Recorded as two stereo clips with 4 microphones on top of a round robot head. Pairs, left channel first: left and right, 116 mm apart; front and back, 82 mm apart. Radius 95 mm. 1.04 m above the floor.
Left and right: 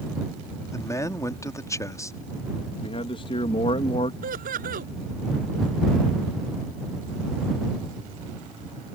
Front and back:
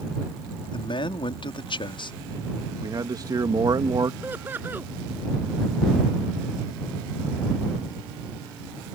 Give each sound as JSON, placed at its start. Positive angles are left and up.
{"t": 0.7, "sound": "a man speaking", "azimuth_deg": 25}
{"t": 2.8, "sound": "a man speaking", "azimuth_deg": 140}
{"t": 4.2, "sound": "laughter", "azimuth_deg": -105}